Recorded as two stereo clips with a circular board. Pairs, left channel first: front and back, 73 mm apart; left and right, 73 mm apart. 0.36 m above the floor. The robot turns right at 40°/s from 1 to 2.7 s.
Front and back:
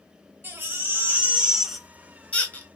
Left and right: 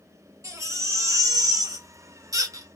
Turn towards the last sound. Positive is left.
turn(degrees=-55)